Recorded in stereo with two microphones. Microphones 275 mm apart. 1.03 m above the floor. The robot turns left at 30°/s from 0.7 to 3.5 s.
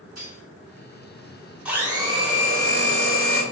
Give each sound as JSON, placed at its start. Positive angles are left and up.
{"t": 0.2, "sound": "cutlery clinking", "side_deg": -70, "distance_m": 1.5}
{"t": 1.6, "sound": "a blender", "azimuth_deg": -5, "distance_m": 1.8}